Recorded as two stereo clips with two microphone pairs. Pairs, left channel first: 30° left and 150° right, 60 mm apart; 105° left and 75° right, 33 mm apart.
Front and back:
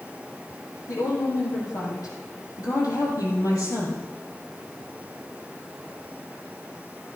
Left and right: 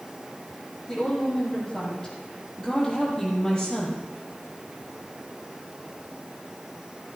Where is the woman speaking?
25° left, 5.5 m; by 4.0 s 30° left, 4 m.